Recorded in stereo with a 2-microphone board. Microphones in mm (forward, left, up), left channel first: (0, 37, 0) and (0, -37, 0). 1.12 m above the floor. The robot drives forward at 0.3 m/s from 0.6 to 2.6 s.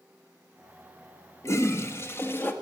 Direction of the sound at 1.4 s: 40° left (ahead or behind).